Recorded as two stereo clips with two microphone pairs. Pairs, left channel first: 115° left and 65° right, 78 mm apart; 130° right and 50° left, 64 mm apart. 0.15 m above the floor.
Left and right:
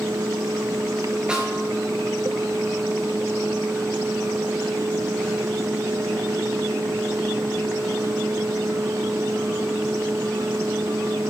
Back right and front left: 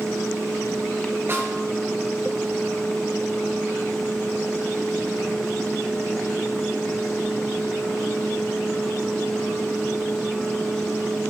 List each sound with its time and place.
1.3 s a snare drum: 10° left, 3.5 m